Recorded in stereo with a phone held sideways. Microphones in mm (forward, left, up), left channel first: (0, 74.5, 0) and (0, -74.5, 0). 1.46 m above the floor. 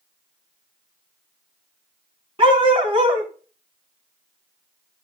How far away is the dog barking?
About 2.5 m.